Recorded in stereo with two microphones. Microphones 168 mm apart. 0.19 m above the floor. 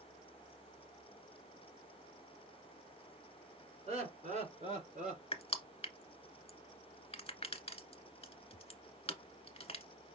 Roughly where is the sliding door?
No sliding door in this recording.